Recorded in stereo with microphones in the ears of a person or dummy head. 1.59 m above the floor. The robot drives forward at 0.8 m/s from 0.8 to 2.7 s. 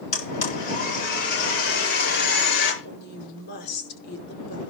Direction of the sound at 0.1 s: 55° left (ahead or behind).